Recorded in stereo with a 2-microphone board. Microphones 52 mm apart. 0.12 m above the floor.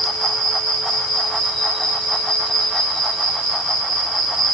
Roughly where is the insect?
Centre.